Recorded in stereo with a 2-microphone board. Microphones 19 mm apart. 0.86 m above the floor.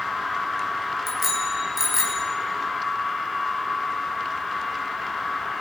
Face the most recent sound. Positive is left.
turn(degrees=-20)  # may be behind; listen again after turning